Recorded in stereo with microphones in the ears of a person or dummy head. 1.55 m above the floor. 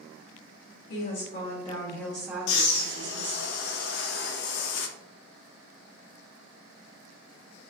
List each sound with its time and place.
0.9 s a woman speaking: 50° left (ahead or behind), 2.0 m; by 3.5 s 55° right (ahead or behind), 2 m
2.5 s breathing: 50° left (ahead or behind), 0.6 m